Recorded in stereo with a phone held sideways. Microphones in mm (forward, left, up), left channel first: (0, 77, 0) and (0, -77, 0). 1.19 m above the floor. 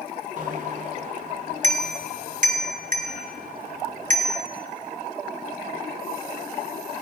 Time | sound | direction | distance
0.4 | a bicycle bell | 55° right (ahead or behind) | 2.5 m